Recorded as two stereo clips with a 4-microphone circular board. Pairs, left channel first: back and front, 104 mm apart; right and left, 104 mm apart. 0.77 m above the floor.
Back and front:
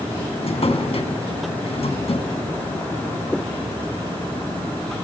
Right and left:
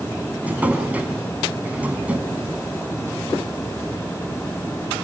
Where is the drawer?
165° left, 3 m.